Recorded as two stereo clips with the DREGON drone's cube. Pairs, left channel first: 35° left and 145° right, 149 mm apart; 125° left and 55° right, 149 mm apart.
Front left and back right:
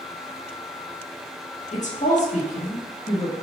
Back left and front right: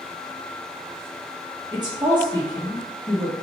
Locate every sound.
1.7 s a woman speaking: 5° left, 1.5 m